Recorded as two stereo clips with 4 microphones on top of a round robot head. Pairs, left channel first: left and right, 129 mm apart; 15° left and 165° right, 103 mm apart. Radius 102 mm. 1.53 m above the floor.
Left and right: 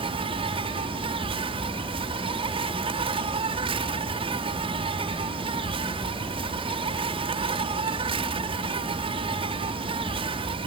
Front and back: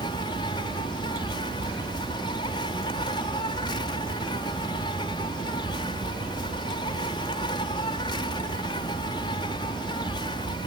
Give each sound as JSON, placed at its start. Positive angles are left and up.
{"t": 0.0, "sound": "an insect", "azimuth_deg": -40}